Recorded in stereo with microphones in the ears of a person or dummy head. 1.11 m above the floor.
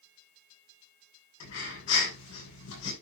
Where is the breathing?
80° left, 8 m.